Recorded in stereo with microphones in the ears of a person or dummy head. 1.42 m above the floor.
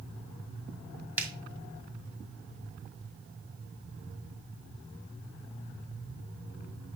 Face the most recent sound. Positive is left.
turn(degrees=-15)  # may be behind; listen again after turning